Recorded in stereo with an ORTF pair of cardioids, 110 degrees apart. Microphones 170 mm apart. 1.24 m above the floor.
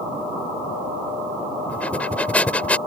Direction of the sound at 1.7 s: 5° left.